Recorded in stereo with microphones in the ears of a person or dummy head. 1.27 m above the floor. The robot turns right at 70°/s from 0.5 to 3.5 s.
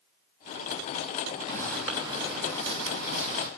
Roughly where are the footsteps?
Left.